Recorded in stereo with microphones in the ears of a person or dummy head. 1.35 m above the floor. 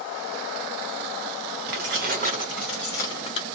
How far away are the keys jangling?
About 0.7 m.